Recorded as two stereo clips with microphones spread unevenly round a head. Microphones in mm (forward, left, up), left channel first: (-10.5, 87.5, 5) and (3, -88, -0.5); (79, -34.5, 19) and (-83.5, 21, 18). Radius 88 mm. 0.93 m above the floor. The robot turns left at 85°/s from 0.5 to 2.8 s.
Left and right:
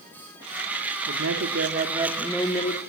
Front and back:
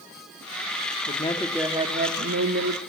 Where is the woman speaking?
70° right, 1.8 m; by 2.8 s 140° left, 1.8 m.